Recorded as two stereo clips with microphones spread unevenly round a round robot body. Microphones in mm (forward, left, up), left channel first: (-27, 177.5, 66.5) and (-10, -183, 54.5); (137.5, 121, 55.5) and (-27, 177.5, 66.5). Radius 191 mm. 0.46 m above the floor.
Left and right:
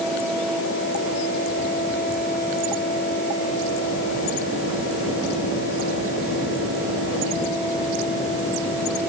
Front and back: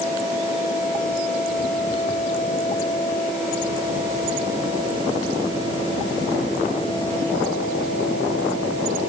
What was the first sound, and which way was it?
Only background noise.